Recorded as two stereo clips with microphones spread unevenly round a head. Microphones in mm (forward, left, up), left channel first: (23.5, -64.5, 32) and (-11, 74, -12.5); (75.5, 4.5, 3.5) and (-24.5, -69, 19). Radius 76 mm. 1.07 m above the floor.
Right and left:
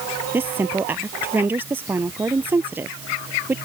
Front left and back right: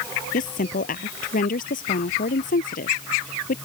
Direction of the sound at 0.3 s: 25° left.